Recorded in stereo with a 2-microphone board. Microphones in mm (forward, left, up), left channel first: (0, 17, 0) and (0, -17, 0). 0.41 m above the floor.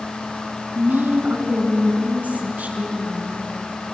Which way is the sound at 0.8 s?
65° right (ahead or behind).